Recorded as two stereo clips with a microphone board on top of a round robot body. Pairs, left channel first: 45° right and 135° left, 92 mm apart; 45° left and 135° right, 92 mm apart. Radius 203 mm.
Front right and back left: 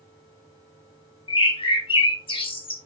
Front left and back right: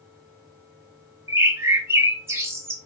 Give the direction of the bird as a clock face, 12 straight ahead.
2 o'clock.